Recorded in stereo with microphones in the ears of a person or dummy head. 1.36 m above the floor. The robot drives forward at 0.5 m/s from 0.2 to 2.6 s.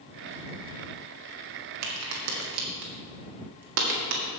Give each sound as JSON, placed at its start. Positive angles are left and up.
{"t": 1.8, "sound": "a crack", "side_deg": -75, "distance_m": 1.9}